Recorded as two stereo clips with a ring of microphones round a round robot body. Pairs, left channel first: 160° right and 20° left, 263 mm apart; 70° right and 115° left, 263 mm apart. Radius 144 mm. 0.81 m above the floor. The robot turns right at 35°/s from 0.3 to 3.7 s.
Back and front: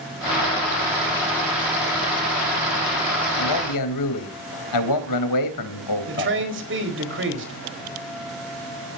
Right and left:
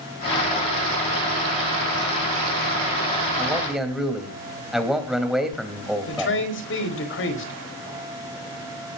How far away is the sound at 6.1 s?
About 4.5 m.